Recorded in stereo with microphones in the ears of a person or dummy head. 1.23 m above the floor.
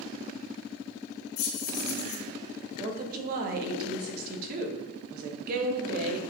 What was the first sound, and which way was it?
Keys jangling, 75° left (ahead or behind).